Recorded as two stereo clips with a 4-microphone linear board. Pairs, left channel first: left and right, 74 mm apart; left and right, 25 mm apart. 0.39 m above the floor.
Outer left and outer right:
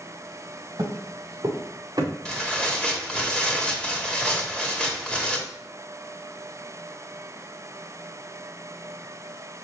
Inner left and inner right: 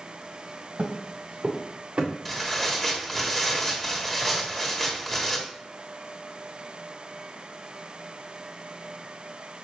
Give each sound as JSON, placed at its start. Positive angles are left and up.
{"t": 0.8, "sound": "footsteps", "side_deg": -70, "distance_m": 2.5}
{"t": 2.2, "sound": "tearing paper", "side_deg": 10, "distance_m": 1.7}